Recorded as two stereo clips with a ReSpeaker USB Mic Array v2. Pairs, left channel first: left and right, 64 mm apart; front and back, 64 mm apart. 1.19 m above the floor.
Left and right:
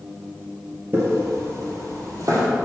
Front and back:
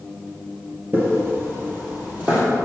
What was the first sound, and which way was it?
Footsteps, 135° right.